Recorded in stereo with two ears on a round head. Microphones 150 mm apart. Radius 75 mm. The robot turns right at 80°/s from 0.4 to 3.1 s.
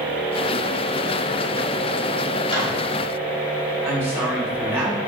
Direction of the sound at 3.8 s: 10° right (ahead or behind).